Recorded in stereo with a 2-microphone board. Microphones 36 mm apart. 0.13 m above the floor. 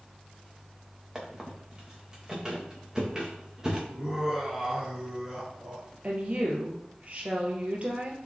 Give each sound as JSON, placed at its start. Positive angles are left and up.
{"t": 1.1, "sound": "a squeak", "side_deg": -20, "distance_m": 3.0}
{"t": 3.9, "sound": "laughter", "side_deg": -10, "distance_m": 1.5}
{"t": 6.0, "sound": "a woman speaking", "side_deg": -40, "distance_m": 2.5}